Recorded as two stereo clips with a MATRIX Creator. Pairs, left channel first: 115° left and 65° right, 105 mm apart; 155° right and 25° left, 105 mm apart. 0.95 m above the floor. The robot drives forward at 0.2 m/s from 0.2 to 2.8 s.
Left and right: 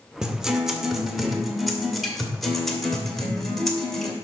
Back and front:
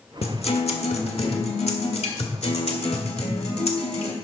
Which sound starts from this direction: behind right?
A guitar, at 0.2 s.